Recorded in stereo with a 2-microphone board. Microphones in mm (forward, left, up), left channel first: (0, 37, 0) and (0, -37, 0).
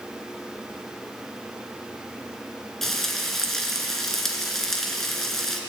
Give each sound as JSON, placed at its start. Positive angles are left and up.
{"t": 2.8, "sound": "frying", "side_deg": 5, "distance_m": 2.5}